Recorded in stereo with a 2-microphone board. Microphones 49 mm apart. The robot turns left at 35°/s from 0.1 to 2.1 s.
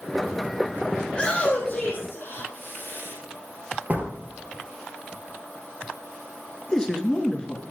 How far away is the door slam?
About 2 m.